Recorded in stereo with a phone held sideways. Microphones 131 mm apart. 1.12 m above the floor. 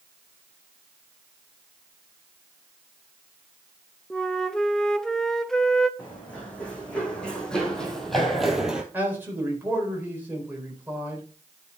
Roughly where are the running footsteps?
Centre.